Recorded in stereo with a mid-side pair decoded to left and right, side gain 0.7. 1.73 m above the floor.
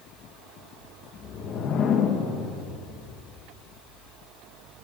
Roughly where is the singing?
No singing in this recording.